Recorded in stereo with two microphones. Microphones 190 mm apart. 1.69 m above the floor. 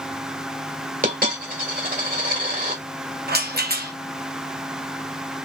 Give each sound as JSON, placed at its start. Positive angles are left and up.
{"t": 1.0, "sound": "a dropped coin", "side_deg": -45, "distance_m": 1.8}
{"t": 3.3, "sound": "a rattle", "side_deg": -55, "distance_m": 1.0}